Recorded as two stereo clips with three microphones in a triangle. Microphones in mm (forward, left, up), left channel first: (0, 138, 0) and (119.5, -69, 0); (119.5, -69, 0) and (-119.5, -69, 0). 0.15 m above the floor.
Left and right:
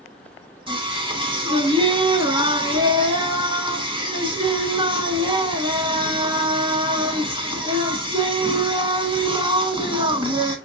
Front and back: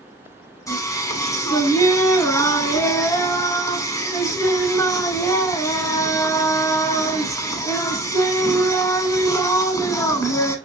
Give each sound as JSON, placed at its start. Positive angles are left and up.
{"t": 0.7, "sound": "singing", "azimuth_deg": -50, "distance_m": 0.8}